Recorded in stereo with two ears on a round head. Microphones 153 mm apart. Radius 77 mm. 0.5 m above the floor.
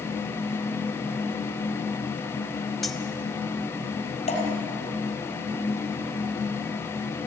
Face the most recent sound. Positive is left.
turn(degrees=35)  # may be behind; listen again after turning